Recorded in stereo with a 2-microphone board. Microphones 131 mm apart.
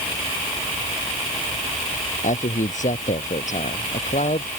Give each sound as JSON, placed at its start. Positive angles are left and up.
{"t": 2.2, "sound": "a man speaking", "side_deg": 70}